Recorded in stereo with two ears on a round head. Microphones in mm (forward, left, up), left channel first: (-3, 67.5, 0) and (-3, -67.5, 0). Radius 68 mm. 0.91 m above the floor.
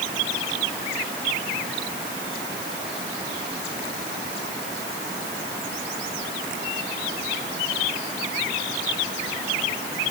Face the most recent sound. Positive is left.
No sound to turn to.